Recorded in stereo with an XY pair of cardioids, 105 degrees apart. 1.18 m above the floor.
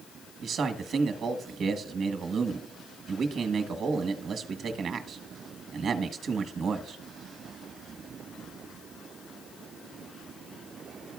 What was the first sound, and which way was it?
A man speaking, 60° right.